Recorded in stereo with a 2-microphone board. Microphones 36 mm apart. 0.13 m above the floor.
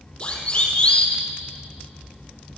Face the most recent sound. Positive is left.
turn(degrees=25)  # may be behind; listen again after turning